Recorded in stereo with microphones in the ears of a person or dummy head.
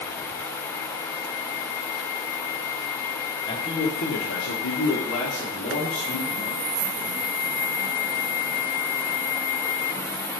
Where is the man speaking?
20° left (ahead or behind), 0.9 m; by 6.6 s 35° left (ahead or behind), 2.5 m.